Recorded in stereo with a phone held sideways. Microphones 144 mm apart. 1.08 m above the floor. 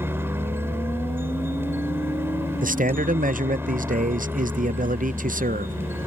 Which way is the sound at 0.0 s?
15° right (ahead or behind).